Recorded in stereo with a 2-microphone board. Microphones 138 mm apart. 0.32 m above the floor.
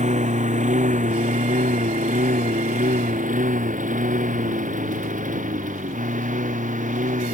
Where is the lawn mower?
65° right (ahead or behind); by 7.3 s 80° right.